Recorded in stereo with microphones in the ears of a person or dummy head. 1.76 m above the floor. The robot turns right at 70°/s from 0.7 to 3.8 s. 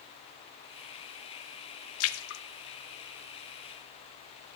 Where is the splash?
85° left, 0.5 m; by 2.4 s 60° left (ahead or behind), 0.5 m.